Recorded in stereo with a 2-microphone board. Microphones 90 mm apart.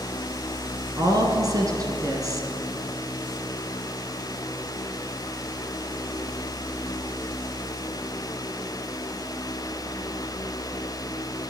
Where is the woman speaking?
40° right (ahead or behind), 1.9 m.